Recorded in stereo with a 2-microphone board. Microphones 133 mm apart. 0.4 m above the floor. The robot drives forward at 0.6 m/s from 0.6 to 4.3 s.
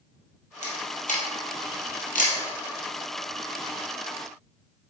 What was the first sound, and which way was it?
A camera shutter, 65° left (ahead or behind).